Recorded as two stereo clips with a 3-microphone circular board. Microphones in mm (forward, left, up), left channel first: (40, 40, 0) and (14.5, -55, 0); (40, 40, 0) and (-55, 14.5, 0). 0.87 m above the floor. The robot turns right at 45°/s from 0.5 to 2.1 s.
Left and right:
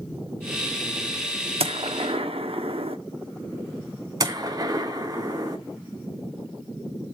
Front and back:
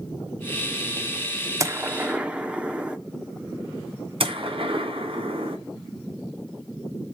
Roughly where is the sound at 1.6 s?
Right.